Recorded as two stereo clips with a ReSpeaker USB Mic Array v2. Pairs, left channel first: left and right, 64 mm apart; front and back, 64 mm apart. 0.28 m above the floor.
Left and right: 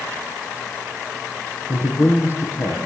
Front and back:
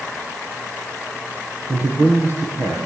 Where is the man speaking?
130° left, 8.5 m.